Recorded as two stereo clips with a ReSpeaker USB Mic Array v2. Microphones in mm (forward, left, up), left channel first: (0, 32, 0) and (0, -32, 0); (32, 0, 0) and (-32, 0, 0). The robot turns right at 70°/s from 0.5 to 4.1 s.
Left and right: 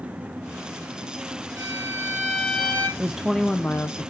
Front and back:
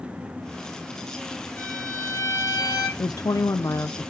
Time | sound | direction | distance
1.6 | a violin | 65° right | 5 m
3.0 | a woman speaking | 20° right | 0.6 m